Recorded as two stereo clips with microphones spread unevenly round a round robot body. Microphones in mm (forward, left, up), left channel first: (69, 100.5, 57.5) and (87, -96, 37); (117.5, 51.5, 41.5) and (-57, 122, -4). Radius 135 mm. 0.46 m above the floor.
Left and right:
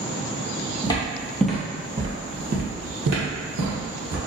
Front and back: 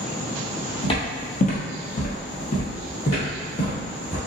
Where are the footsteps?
30° left, 1.0 m; by 4.2 s 85° right, 1.5 m.